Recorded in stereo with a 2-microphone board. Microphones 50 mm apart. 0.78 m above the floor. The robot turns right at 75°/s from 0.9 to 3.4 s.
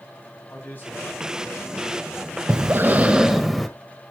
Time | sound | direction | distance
0.5 | a man speaking | 40° left | 5 m
2.5 | breathing | 70° right | 1.2 m